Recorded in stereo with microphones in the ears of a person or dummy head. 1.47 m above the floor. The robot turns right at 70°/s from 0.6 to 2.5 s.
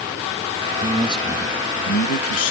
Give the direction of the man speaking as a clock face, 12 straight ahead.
1 o'clock.